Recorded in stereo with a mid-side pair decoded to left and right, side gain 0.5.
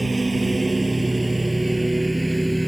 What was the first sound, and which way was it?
A lawn mower, 20° right.